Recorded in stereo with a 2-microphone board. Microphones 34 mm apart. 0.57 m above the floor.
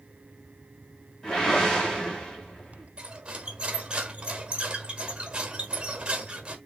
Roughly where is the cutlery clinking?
Right.